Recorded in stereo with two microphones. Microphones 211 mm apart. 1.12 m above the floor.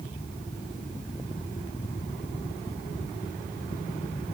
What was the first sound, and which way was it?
Only background noise.